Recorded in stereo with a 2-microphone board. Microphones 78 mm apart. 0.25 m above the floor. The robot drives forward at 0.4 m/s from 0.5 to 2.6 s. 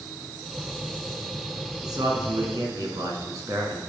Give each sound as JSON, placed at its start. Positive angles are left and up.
{"t": 1.8, "sound": "a man speaking", "side_deg": -60, "distance_m": 2.5}